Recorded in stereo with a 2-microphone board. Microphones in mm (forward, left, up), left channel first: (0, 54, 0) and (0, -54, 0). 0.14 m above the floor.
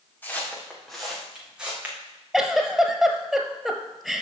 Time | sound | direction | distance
0.2 | footsteps | 15° left (ahead or behind) | 2.5 m
2.3 | a giggle | centre (ahead or behind) | 0.9 m